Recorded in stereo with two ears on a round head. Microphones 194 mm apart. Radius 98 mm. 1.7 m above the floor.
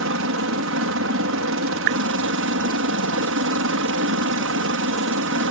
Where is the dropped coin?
I don't hear a dropped coin.